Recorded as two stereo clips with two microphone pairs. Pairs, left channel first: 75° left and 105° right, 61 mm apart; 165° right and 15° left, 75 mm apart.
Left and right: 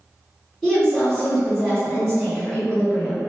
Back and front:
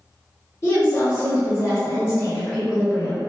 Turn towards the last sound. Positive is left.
turn(degrees=160)